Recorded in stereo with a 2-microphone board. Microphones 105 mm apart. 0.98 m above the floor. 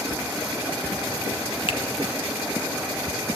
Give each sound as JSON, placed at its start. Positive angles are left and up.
{"t": 1.7, "sound": "a finger snap", "side_deg": 55, "distance_m": 0.6}